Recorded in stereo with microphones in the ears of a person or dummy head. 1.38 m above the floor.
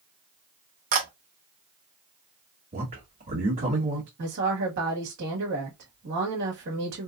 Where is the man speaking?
35° right (ahead or behind), 2 m.